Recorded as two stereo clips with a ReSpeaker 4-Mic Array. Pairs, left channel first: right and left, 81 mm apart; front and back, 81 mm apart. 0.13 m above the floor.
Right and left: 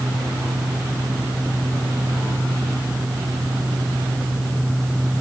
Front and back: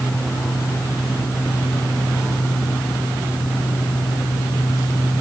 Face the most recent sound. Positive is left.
No sound to turn to.